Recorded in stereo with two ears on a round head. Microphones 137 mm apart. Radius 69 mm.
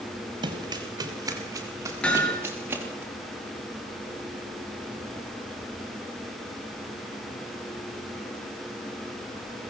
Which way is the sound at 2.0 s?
10° left (ahead or behind).